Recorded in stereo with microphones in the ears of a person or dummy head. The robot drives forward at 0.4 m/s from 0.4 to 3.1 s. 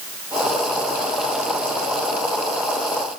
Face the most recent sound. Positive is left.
No sound to turn to.